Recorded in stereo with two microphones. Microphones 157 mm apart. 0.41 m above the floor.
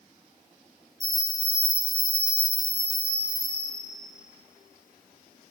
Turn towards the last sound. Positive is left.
turn(degrees=-25)  # may be behind; listen again after turning